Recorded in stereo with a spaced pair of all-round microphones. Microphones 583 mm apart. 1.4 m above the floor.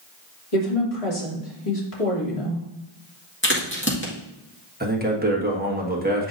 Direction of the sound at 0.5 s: 75° left (ahead or behind).